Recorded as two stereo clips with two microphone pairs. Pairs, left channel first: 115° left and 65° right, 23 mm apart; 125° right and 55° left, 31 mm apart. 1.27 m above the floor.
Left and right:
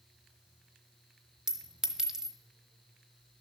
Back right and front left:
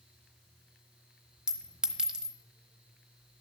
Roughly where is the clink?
Ahead.